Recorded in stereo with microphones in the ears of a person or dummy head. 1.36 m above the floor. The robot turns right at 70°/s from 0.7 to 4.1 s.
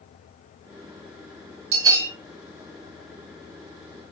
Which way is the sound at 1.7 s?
35° right (ahead or behind).